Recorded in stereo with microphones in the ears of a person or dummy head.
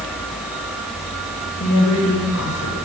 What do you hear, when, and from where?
1.6 s a woman speaking: 85° left, 8.5 m